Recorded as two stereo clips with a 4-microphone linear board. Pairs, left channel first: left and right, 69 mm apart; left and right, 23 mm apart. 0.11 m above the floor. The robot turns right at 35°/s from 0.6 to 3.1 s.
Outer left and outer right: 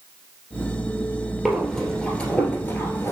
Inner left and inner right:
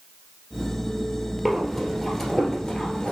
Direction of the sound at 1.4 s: 5° right (ahead or behind).